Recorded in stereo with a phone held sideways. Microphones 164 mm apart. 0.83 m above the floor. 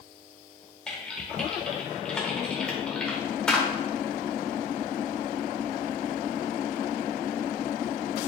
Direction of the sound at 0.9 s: 5° left (ahead or behind).